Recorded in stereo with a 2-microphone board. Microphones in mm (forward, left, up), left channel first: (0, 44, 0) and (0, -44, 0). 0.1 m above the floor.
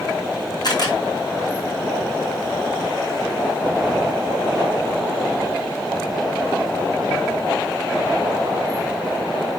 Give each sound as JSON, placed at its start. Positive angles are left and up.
{"t": 0.6, "sound": "a camera shutter", "side_deg": 50, "distance_m": 4.0}